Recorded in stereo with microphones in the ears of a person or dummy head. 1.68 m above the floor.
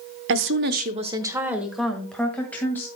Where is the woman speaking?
65° right (ahead or behind), 0.9 m; by 2.9 s 15° left (ahead or behind), 2.5 m.